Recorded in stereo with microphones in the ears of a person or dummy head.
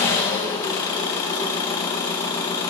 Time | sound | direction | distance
0.0 | an engine running | 20° left (ahead or behind) | 0.8 m